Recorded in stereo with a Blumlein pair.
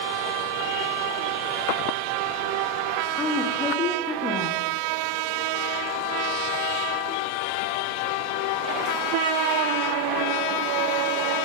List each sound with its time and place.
3.2 s a woman speaking: 20° left, 1.2 m